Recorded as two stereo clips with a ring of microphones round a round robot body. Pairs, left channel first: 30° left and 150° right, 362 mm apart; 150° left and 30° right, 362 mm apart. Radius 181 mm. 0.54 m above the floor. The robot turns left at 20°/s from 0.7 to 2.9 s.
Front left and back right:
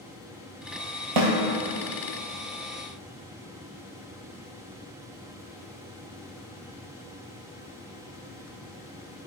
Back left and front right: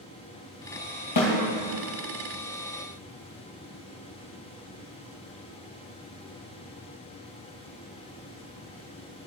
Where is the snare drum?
165° right, 3 m; by 1.3 s 170° right, 3 m.